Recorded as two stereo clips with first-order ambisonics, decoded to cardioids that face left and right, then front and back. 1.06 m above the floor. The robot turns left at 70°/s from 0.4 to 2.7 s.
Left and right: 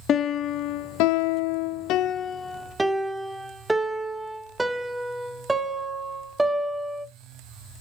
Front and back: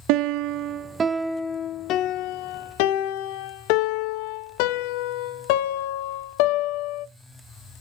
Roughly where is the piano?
Behind left.